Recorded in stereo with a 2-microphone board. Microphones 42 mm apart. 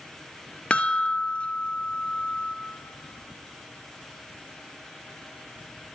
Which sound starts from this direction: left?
A chime, at 0.7 s.